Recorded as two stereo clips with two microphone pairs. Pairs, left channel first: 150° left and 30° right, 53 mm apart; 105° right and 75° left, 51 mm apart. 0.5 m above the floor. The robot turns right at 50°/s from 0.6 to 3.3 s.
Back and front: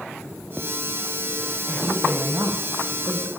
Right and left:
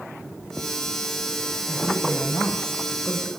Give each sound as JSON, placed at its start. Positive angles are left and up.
{"t": 1.7, "sound": "a woman speaking", "azimuth_deg": -75, "distance_m": 3.0}